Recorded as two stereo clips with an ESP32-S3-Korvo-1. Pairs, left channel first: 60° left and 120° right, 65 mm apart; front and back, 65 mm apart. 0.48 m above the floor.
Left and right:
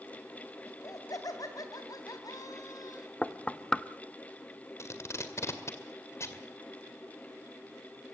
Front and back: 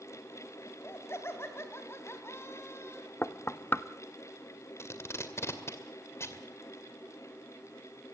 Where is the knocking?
5° right, 0.6 m.